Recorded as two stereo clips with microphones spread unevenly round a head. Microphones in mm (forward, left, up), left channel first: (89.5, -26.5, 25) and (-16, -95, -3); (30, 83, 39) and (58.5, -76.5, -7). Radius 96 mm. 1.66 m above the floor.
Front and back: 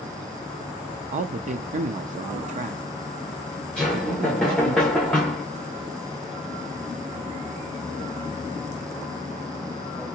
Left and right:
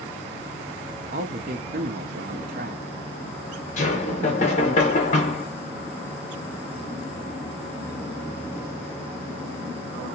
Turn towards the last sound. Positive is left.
turn(degrees=110)